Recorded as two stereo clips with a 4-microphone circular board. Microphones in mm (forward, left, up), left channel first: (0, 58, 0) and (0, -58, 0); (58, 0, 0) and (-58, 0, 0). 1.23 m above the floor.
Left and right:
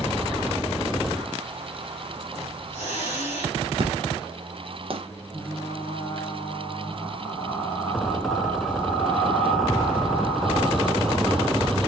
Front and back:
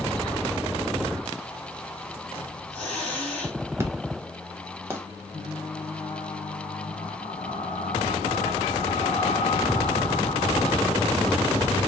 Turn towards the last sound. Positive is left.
turn(degrees=10)